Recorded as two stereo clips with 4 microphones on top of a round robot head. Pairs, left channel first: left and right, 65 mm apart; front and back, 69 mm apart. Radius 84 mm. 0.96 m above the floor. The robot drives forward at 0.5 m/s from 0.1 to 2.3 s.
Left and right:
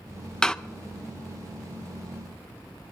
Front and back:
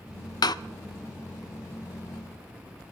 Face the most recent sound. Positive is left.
turn(degrees=165)